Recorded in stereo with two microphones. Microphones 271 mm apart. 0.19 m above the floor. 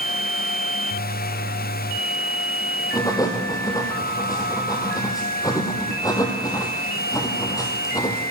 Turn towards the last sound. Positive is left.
turn(degrees=15)  # may be behind; listen again after turning